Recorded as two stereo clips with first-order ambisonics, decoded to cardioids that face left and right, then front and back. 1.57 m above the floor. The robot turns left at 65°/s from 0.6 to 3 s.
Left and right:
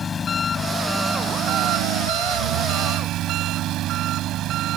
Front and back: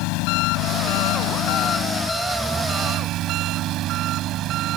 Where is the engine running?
20° left; by 4.8 s 135° right.